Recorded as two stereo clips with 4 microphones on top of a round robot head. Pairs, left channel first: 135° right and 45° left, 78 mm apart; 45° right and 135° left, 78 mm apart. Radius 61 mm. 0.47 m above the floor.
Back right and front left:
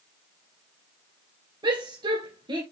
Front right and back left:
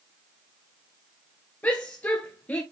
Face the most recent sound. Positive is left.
turn(degrees=25)